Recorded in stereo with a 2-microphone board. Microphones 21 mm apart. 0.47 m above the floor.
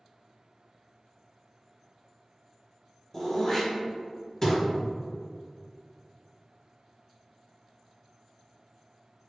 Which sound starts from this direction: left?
Throat clearing, at 3.1 s.